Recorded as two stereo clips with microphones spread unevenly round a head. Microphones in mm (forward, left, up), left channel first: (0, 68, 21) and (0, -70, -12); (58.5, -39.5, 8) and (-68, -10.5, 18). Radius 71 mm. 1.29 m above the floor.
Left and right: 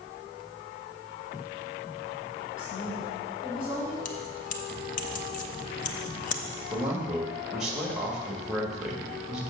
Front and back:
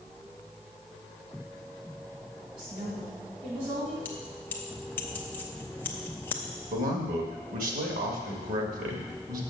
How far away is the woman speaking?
About 4 m.